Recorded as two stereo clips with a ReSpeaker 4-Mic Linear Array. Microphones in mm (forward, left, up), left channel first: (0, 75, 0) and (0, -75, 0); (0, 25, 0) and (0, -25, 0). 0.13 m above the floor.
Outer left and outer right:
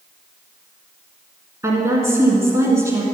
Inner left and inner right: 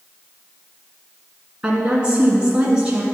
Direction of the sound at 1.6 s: 20° right (ahead or behind).